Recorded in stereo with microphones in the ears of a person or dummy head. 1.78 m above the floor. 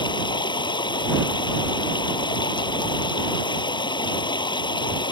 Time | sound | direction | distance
0.0 | running water | 20° left (ahead or behind) | ?